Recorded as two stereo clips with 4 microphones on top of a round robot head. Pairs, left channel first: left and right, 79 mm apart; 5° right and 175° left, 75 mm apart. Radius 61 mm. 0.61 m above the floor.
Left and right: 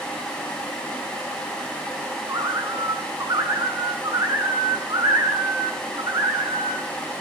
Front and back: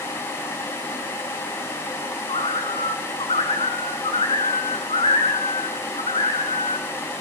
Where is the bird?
30° right, 5 m.